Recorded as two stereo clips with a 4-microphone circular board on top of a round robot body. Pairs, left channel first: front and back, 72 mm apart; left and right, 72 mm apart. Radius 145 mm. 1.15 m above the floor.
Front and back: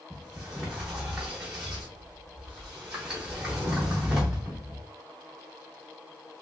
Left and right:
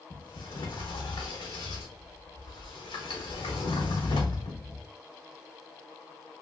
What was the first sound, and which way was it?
A sliding door, 100° left.